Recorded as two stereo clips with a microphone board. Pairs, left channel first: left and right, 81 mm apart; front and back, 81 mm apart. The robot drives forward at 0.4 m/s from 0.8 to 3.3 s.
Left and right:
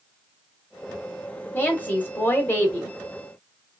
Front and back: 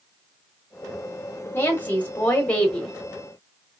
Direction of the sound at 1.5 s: 40° left.